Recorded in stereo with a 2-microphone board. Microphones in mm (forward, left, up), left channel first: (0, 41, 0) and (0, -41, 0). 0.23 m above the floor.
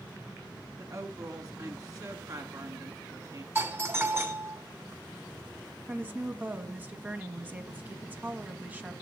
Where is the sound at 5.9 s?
20° right (ahead or behind), 1.4 m.